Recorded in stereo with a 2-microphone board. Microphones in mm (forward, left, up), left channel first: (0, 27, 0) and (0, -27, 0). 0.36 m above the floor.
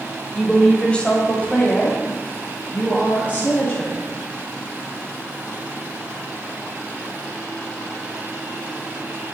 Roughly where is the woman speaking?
Centre.